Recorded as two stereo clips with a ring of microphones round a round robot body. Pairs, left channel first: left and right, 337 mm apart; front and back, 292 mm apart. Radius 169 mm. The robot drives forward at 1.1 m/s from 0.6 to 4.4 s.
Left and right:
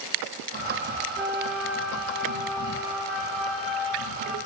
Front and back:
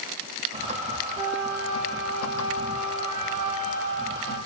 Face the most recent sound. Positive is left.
turn(degrees=180)